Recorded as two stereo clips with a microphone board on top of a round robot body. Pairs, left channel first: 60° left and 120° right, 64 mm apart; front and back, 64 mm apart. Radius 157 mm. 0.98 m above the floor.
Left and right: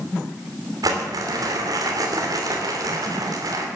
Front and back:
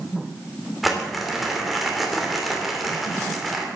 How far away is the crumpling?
About 2.5 m.